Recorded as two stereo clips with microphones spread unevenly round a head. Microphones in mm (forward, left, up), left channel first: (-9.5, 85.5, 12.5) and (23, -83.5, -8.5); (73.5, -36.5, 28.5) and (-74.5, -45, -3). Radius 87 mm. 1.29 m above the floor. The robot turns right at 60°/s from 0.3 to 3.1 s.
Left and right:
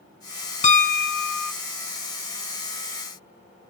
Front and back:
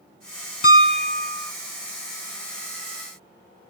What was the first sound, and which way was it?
A piano, 45° left.